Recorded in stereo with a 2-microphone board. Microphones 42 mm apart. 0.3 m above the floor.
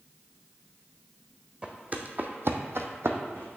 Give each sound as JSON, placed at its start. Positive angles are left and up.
{"t": 1.6, "sound": "footsteps", "side_deg": -25, "distance_m": 0.9}